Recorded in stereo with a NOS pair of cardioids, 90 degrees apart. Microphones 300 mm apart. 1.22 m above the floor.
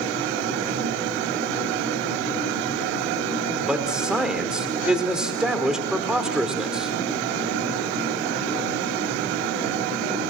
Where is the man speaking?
Straight ahead, 4.5 m.